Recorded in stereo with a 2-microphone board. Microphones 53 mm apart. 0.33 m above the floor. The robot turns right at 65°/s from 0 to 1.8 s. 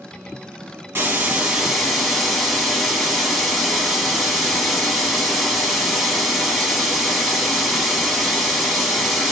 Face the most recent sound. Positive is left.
turn(degrees=5)